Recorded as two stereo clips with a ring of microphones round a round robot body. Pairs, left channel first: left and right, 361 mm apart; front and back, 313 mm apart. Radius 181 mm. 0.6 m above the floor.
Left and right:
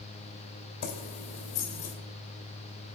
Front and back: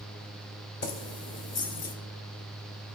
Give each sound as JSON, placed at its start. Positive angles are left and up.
{"t": 0.8, "sound": "keys jangling", "azimuth_deg": 40, "distance_m": 1.8}